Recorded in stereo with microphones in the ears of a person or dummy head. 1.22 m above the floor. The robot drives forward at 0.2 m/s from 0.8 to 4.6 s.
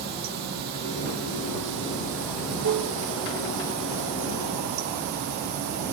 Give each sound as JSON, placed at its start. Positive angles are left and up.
{"t": 0.0, "sound": "running water", "side_deg": -50, "distance_m": 0.7}